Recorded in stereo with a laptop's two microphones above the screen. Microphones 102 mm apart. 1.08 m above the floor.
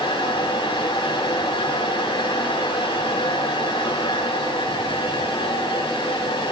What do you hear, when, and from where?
0.0 s a fan: 75° left (ahead or behind), 4.5 m